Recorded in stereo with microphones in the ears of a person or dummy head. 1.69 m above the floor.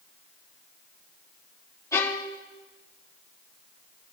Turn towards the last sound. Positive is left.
turn(degrees=15)  # may be behind; listen again after turning